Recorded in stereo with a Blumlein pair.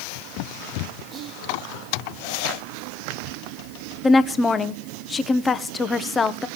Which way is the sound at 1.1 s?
25° right.